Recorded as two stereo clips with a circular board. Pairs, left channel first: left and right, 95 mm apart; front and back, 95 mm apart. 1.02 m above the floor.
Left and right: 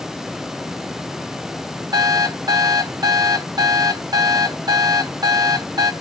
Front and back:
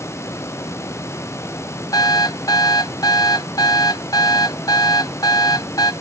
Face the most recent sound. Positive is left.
turn(degrees=-45)